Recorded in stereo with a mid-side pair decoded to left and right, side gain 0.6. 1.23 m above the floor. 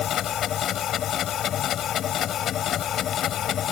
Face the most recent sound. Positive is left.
turn(degrees=50)